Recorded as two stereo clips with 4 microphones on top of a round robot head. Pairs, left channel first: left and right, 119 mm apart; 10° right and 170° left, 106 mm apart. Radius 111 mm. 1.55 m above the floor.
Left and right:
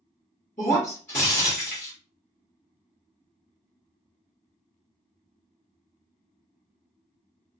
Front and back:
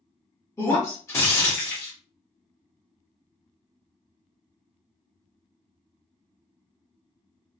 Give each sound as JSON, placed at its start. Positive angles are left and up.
{"t": 0.6, "sound": "breaking glass", "azimuth_deg": 50, "distance_m": 1.0}